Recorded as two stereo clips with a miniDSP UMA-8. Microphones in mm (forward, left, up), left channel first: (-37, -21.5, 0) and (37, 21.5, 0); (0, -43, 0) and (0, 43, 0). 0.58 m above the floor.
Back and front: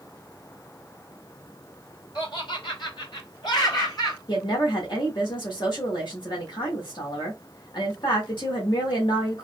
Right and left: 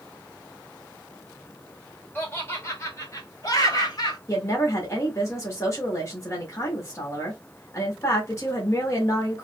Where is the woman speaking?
140° right, 1.3 m.